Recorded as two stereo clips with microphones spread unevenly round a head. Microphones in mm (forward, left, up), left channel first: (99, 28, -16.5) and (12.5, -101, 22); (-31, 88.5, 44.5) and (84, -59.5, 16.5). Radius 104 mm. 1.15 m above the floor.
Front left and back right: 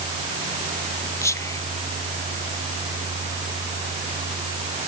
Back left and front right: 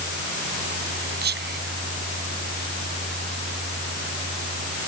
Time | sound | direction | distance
1.2 | whispering | 15° right | ?